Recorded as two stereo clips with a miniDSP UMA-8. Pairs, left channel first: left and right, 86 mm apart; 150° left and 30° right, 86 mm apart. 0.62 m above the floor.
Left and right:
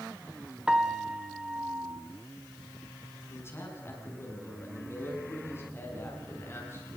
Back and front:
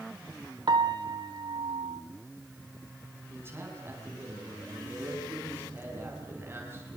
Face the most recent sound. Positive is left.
turn(degrees=30)